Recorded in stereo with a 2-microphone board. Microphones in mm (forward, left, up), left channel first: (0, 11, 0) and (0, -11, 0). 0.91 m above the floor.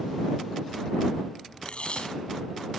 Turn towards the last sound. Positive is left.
turn(degrees=60)  # may be behind; listen again after turning